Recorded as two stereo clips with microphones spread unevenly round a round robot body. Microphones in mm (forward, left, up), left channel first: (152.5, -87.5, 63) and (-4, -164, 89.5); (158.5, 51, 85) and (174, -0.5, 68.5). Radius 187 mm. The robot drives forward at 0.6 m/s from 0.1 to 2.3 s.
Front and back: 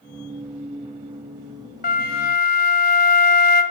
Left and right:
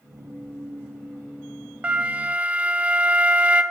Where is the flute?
5° right, 1.3 m.